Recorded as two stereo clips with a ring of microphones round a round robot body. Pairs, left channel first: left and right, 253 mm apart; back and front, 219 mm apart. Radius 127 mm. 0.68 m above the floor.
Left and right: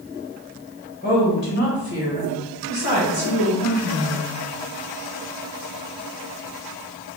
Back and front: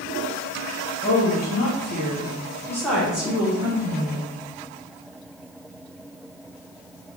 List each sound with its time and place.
1.0 s a woman speaking: 150° left, 1.9 m; by 4.3 s 60° left, 2.0 m